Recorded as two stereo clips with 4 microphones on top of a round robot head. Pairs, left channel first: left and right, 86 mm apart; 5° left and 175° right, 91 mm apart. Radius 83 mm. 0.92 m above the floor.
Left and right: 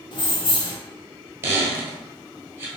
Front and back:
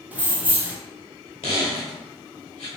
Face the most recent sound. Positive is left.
turn(degrees=-40)